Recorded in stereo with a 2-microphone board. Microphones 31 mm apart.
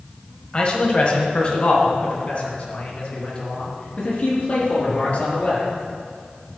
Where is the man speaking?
40° left (ahead or behind), 1.6 m; by 5.7 s 50° left (ahead or behind), 4.5 m.